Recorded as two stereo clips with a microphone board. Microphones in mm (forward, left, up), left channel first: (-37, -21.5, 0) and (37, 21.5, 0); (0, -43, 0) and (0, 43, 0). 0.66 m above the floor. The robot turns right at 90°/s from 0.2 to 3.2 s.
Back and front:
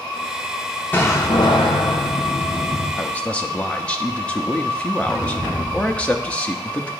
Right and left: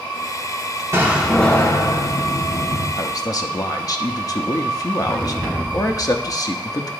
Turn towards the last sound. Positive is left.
turn(degrees=-80)